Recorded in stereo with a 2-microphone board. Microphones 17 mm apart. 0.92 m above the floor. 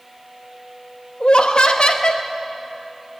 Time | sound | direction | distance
1.2 | laughter | 75° left (ahead or behind) | 0.8 m